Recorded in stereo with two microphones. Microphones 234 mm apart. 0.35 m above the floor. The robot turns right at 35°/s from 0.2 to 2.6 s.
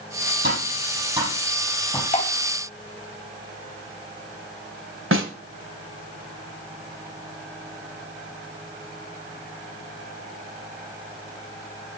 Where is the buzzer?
I don't hear a buzzer.